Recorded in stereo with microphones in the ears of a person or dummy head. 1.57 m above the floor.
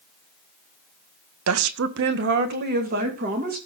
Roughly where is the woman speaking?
Right.